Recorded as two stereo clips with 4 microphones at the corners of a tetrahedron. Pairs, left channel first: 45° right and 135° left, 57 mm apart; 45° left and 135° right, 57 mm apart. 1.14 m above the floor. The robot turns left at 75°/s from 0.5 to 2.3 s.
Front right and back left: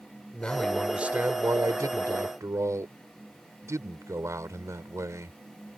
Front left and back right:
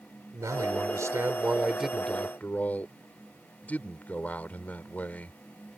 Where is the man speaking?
120° right; by 5.4 s 105° left.